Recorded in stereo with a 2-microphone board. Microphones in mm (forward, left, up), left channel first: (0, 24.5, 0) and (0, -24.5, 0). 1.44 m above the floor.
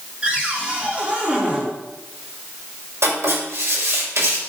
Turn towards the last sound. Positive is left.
turn(degrees=-75)  # may be behind; listen again after turning